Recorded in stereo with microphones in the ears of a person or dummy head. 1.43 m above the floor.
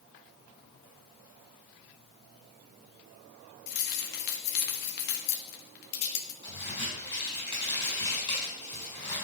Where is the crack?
25° left (ahead or behind), 5 m.